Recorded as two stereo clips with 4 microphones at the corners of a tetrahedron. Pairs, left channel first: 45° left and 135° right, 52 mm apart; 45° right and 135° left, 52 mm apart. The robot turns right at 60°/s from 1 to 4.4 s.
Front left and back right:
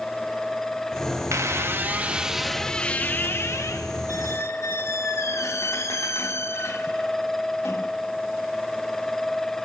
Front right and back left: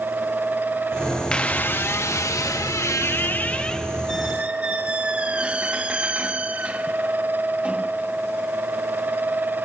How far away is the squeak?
About 0.8 m.